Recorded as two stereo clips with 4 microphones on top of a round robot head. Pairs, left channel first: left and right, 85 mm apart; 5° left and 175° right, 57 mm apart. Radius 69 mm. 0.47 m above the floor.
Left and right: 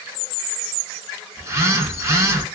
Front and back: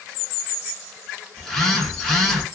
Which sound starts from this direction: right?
A phone buzzing, at 1.4 s.